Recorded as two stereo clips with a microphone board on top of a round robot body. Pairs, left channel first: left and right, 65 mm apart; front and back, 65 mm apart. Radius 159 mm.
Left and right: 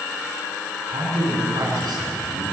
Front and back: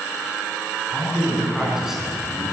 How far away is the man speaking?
About 6.5 m.